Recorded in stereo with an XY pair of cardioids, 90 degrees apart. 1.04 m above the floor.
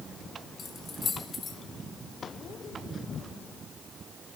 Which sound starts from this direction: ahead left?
Keys jangling, at 0.6 s.